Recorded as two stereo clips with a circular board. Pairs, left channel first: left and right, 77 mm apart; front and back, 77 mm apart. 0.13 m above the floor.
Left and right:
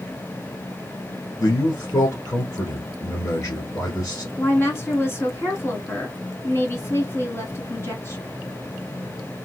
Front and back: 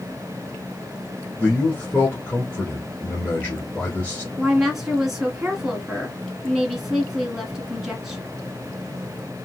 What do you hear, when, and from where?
1.4 s a man speaking: 55° left, 1.5 m
4.4 s a woman speaking: 95° left, 1.4 m